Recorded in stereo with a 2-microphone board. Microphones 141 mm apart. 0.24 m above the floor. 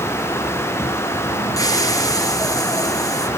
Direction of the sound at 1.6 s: 25° left (ahead or behind).